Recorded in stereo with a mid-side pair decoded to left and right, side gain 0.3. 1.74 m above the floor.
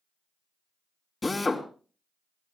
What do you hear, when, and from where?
1.2 s a drill: 35° left, 3 m